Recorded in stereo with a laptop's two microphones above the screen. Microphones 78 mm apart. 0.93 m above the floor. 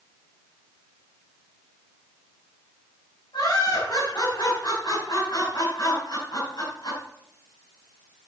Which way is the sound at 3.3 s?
65° left (ahead or behind).